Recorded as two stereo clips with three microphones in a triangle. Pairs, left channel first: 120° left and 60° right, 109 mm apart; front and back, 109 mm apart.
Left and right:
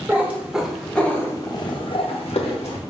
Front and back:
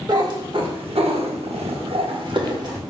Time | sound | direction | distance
0.1 | a cat meowing | 130° right | 0.9 m